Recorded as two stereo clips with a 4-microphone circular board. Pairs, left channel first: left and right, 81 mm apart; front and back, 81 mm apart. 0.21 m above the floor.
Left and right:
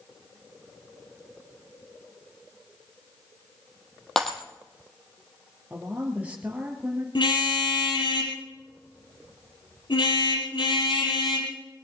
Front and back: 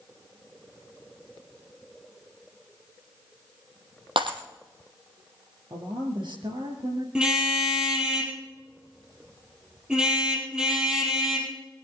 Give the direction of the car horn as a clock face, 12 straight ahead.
9 o'clock.